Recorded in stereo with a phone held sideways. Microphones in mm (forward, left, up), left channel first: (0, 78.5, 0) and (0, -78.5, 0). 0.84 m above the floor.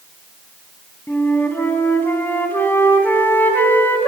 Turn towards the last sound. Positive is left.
turn(degrees=10)  # may be behind; listen again after turning